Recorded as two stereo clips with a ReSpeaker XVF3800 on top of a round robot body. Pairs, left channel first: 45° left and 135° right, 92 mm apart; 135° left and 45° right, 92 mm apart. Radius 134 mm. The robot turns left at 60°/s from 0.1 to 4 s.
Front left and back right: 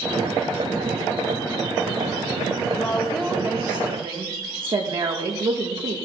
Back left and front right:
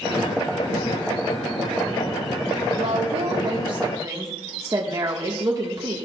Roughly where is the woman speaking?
Ahead right.